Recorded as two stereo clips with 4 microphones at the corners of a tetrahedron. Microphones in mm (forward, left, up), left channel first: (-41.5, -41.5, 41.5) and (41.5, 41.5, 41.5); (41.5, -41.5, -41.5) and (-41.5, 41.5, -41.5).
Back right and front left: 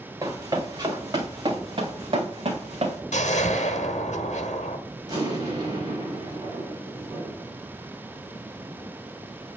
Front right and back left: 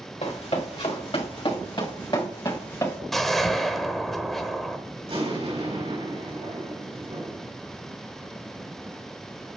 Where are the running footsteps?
15° right, 2.5 m; by 3.0 s 20° left, 3 m.